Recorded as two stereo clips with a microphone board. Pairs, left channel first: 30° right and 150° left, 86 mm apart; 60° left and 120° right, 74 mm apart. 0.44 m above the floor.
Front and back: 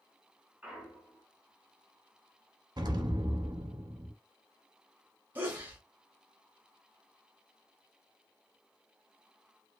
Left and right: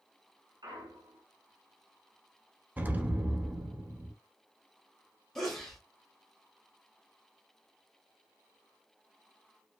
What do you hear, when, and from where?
0.6 s a clunk: 130° right, 0.9 m
2.8 s an explosion: 175° left, 0.5 m
5.3 s a sneeze: 135° left, 0.8 m